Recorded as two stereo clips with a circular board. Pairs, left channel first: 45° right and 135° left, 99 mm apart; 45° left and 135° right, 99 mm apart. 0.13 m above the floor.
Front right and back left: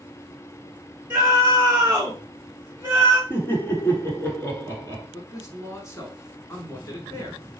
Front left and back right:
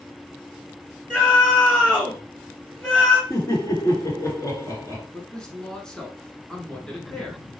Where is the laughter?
5° left, 1.4 m.